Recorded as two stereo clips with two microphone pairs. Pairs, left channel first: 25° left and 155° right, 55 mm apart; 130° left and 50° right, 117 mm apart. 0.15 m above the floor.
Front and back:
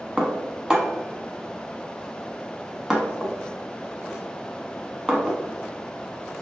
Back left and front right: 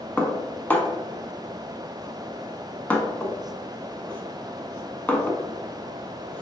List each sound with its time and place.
0.2 s dishes clattering: 160° left, 0.7 m